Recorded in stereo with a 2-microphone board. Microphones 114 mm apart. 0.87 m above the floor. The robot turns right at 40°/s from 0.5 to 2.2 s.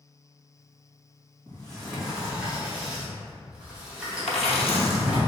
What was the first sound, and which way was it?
A sliding door, 15° left (ahead or behind).